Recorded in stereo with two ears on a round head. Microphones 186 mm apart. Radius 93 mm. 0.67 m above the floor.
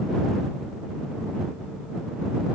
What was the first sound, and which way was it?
Only background noise.